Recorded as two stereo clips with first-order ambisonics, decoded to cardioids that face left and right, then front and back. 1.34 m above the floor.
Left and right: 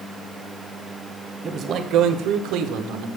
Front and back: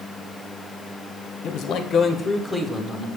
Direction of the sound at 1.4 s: 25° right.